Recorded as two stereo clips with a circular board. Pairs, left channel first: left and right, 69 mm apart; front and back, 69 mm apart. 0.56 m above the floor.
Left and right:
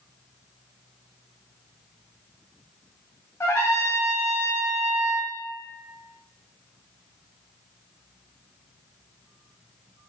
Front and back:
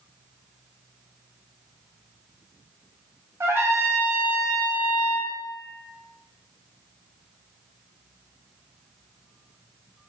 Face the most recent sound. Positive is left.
turn(degrees=135)